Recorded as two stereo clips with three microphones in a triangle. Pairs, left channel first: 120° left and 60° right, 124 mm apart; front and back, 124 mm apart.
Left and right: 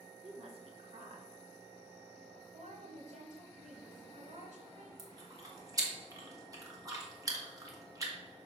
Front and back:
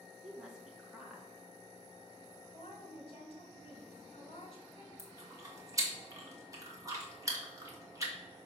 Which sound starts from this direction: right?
A woman speaking, at 0.2 s.